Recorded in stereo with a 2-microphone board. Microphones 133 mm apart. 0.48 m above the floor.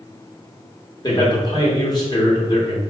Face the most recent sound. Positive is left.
turn(degrees=30)  # may be behind; listen again after turning